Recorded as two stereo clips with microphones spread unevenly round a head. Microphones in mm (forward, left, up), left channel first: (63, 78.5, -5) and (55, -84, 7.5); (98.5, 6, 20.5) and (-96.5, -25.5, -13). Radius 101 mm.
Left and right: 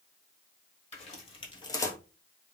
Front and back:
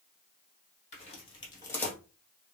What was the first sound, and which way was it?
Footsteps, 45° left.